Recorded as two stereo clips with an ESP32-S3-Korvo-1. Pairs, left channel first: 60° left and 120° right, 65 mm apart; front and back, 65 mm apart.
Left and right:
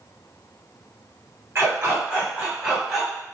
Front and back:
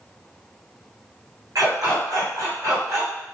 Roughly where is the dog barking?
Behind.